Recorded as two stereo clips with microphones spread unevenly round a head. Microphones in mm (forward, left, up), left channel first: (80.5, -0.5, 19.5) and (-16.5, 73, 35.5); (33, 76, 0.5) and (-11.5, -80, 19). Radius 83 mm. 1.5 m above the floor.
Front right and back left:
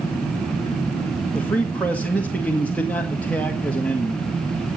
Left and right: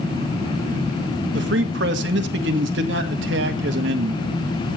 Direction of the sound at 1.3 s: 120° right.